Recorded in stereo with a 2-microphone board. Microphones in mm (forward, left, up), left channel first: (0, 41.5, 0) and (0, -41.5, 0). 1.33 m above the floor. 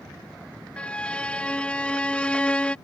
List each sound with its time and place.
0.8 s a violin: 15° left (ahead or behind)